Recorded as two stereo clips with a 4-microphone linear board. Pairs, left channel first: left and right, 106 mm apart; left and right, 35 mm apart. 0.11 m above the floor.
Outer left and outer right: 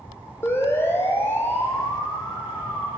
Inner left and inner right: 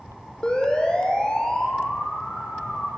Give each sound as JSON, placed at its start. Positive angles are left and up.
{"t": 0.4, "sound": "a siren", "side_deg": 25, "distance_m": 4.0}